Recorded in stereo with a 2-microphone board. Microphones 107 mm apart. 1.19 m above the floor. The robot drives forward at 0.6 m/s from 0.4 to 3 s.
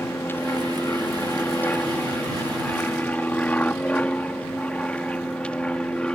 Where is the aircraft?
20° left (ahead or behind); by 6.2 s 10° left (ahead or behind).